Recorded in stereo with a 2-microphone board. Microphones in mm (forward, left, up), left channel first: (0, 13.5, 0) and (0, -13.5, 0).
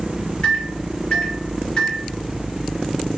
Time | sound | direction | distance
0.4 | a microwave | 35° left (ahead or behind) | 0.8 m